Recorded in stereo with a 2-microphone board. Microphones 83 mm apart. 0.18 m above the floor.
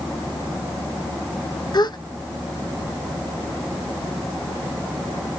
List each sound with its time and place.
1.7 s a gasp: 55° left (ahead or behind), 0.5 m